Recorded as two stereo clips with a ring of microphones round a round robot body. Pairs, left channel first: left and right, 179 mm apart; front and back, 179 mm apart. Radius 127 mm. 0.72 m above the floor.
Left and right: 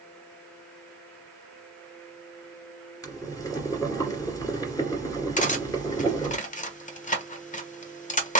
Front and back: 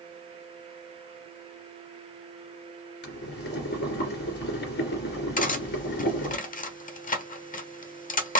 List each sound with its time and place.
3.0 s boiling: 20° left, 2.5 m
5.4 s cutlery clinking: 45° left, 1.2 m